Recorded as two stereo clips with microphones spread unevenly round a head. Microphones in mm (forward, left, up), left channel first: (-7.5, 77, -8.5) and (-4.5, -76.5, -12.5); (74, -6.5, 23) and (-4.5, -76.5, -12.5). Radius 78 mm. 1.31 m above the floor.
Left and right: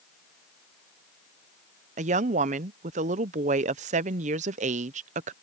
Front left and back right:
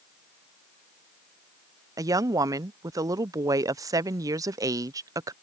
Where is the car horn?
I don't hear a car horn.